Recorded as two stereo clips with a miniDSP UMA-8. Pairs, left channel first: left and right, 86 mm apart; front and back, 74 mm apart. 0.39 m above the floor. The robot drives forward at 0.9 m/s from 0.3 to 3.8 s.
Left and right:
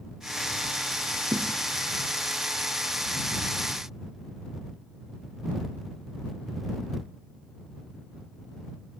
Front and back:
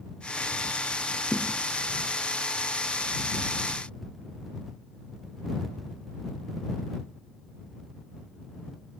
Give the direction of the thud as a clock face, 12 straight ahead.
2 o'clock.